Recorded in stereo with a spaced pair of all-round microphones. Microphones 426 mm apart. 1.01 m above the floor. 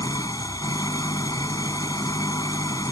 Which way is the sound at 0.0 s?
10° left (ahead or behind).